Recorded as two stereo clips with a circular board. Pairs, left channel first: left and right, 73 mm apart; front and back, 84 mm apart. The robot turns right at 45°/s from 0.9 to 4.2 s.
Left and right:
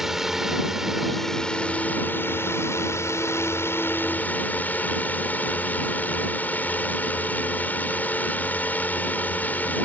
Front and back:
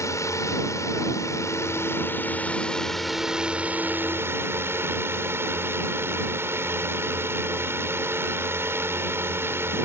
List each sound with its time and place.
0.0 s a drone: 10° right; by 9.8 s 140° left